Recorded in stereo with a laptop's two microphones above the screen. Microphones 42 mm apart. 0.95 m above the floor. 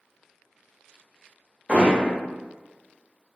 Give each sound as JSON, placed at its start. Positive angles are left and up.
{"t": 1.7, "sound": "hammering", "side_deg": -30, "distance_m": 0.7}